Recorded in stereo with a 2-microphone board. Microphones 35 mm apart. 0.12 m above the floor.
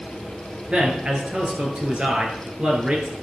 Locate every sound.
0.7 s a man speaking: 40° right (ahead or behind), 2.5 m